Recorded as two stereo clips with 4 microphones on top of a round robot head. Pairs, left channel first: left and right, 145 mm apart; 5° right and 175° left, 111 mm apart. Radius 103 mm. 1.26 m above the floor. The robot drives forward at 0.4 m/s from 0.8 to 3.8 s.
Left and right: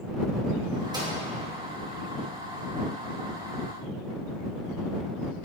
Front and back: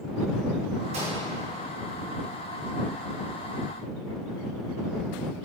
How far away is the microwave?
About 2 m.